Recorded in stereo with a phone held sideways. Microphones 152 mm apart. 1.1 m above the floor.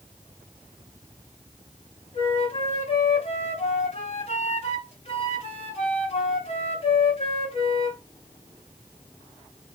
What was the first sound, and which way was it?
A flute, 45° left (ahead or behind).